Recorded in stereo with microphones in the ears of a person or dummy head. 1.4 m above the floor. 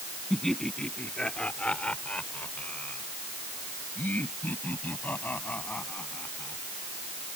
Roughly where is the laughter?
Centre.